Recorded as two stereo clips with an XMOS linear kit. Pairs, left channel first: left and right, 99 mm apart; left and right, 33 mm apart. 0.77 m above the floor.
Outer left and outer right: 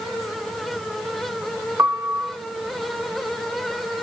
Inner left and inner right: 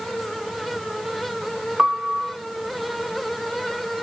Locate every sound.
1.8 s a piano: 25° right (ahead or behind), 0.7 m